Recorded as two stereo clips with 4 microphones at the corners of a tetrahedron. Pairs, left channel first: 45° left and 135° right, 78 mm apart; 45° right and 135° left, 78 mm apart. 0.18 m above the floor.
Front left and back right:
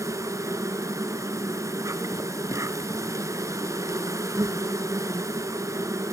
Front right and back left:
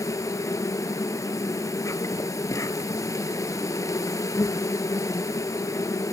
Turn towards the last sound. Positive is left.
turn(degrees=-90)